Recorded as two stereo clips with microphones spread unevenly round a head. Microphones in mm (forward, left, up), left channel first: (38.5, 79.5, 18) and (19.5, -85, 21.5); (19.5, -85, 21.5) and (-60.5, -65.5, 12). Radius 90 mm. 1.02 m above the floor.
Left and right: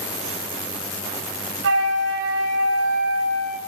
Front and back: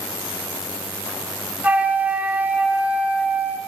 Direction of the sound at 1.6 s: 120° right.